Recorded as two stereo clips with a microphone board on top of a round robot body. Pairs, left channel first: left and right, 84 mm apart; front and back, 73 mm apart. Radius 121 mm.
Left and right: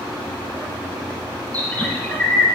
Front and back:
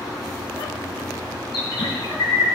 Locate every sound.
1.5 s a bird: 20° left, 1.9 m